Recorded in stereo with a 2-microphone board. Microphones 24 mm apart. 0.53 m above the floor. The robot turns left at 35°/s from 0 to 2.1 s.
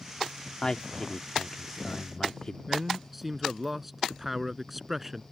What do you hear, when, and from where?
0.6 s a man speaking: 110° left; by 2.6 s 60° left
2.7 s a man speaking: 10° right (ahead or behind)